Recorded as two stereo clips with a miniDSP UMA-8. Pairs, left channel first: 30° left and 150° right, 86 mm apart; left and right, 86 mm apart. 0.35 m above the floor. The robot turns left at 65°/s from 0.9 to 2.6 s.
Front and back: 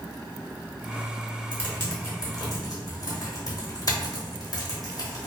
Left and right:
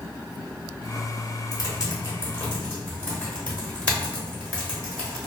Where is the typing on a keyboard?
95° left, 0.9 m; by 5.3 s 25° left, 0.9 m.